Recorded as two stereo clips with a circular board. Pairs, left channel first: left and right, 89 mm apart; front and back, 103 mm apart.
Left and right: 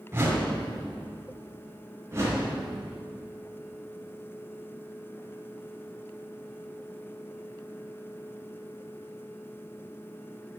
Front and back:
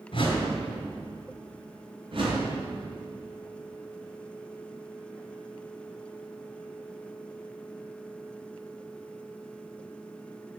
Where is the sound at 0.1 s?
30° right, 2.5 m.